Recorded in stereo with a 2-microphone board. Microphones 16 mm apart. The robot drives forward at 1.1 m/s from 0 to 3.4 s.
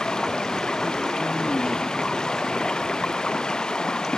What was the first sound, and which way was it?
Running water, 55° left (ahead or behind).